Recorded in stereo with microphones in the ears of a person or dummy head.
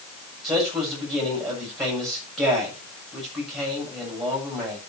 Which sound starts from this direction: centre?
A man speaking, at 0.4 s.